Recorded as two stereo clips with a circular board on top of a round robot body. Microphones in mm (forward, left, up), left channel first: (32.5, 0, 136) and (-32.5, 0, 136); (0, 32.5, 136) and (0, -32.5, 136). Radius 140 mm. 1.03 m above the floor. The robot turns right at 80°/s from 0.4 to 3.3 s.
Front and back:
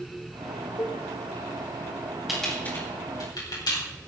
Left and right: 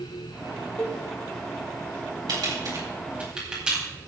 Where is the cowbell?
30° left, 3 m; by 1.0 s 50° left, 3 m.